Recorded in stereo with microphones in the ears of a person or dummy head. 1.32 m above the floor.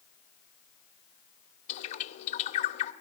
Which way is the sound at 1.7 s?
40° left (ahead or behind).